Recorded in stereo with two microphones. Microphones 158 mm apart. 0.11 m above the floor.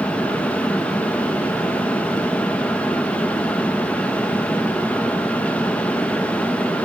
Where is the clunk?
No clunk in this recording.